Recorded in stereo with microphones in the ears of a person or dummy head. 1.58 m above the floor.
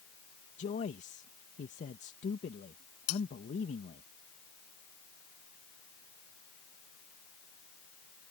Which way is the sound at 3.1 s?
80° left.